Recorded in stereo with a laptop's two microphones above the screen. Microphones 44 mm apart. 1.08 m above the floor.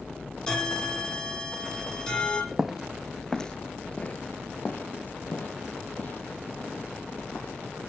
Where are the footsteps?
10° right (ahead or behind), 1.2 m; by 7.5 s 40° left (ahead or behind), 3.5 m.